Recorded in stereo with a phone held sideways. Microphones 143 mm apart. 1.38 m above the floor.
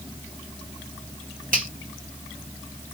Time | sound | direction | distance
1.5 | a finger snap | 70° right (ahead or behind) | 2 m